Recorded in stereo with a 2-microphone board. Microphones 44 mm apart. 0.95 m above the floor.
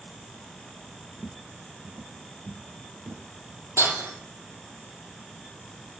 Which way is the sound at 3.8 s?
80° right.